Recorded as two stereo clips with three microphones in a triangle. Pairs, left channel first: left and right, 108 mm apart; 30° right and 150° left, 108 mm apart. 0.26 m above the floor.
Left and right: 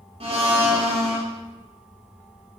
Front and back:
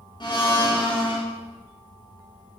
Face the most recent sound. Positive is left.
turn(degrees=-70)